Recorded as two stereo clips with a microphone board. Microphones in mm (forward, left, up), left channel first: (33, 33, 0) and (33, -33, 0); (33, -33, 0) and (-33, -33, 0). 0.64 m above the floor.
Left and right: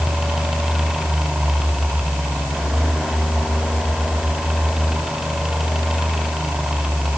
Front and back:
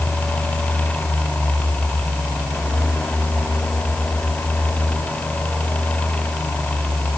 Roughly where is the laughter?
No laughter in this recording.